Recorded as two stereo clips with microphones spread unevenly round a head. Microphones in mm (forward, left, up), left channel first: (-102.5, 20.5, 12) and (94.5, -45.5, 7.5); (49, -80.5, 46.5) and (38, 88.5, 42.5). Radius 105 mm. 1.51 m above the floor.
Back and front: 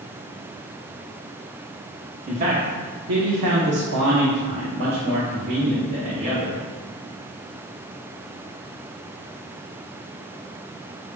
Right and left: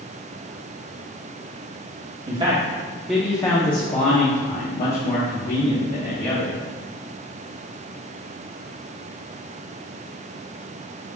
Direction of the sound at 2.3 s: 40° left.